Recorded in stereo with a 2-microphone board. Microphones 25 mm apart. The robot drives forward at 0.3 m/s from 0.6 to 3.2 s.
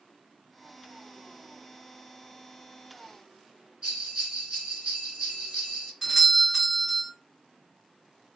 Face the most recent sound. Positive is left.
turn(degrees=-15)  # may be behind; listen again after turning